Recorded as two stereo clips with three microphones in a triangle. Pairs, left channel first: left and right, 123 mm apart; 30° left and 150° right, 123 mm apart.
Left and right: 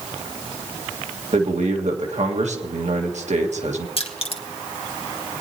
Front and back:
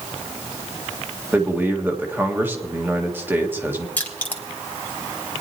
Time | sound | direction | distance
1.3 | a man speaking | 75° right | 1.6 m
4.0 | crushing | 105° left | 1.6 m